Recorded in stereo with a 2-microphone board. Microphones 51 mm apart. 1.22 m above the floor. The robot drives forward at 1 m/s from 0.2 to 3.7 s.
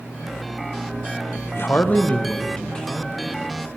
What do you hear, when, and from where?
1.5 s a man speaking: 50° left (ahead or behind), 0.5 m; by 3.7 s 10° left (ahead or behind), 2.5 m